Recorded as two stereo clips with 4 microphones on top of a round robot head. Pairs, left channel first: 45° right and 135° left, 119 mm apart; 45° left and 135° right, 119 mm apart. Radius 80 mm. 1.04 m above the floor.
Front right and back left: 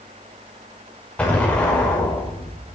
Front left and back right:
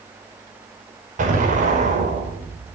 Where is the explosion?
125° right, 5.5 m.